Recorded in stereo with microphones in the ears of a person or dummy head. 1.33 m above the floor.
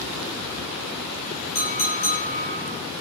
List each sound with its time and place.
1.6 s a clink: 45° left (ahead or behind), 1.4 m